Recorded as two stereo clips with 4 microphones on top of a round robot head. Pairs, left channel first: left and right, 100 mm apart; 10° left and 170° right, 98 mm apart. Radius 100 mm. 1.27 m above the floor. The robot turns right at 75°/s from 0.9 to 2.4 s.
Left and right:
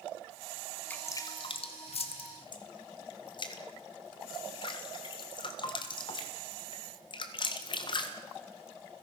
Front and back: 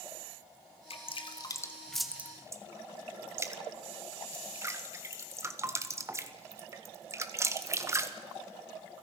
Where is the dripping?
15° left, 1.6 m; by 8.1 s 130° left, 1.6 m.